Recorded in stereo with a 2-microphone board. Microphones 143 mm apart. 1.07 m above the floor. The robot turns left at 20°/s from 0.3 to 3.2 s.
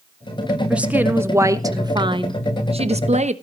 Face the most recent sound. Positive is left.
turn(degrees=-55)